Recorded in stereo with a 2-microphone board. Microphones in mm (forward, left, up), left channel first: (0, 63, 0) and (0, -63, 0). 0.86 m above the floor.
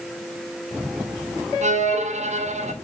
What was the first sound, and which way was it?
A violin, 65° right (ahead or behind).